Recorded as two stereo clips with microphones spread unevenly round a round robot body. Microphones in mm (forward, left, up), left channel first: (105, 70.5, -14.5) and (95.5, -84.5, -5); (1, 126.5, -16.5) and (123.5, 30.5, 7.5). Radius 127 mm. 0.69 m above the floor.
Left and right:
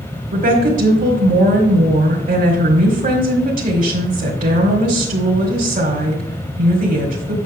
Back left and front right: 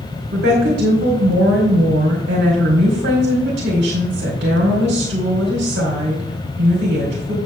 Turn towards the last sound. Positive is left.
turn(degrees=-70)